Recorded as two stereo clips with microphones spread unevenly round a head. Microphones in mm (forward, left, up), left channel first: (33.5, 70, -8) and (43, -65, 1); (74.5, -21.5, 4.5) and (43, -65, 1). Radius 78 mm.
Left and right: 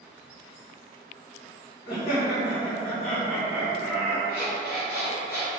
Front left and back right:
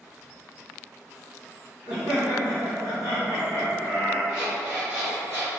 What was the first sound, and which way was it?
Laughter, 160° left.